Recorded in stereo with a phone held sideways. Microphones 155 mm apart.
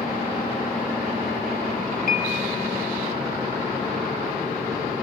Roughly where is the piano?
Left.